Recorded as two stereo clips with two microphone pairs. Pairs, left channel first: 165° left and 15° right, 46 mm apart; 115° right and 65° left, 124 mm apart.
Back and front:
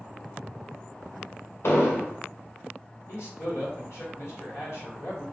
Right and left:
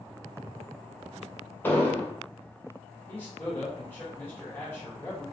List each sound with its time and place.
1.6 s an explosion: 170° left, 0.5 m
3.1 s a man speaking: 170° left, 1.2 m